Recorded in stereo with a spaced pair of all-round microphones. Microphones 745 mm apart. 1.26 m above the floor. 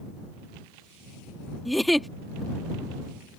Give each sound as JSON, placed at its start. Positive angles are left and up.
{"t": 1.6, "sound": "a giggle", "side_deg": 0}